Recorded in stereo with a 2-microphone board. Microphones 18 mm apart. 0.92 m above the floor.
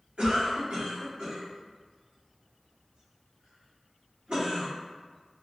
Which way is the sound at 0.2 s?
80° right.